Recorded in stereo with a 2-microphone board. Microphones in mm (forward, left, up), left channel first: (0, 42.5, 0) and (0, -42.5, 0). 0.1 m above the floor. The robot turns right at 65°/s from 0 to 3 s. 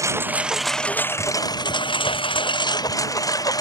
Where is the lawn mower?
40° right (ahead or behind); by 3.6 s 45° left (ahead or behind).